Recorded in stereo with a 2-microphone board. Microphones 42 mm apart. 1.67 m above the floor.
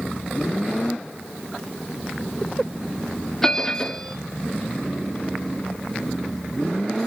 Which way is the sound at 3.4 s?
10° left (ahead or behind).